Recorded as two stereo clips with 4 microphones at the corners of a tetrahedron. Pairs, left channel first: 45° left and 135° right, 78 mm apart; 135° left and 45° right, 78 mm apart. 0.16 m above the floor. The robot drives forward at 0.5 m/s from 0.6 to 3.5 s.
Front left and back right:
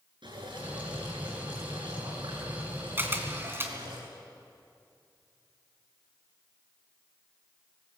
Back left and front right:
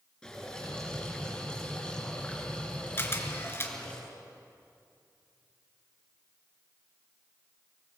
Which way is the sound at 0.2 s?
145° right.